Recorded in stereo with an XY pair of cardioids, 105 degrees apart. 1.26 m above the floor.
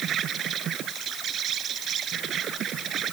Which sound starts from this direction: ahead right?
An insect, at 0.0 s.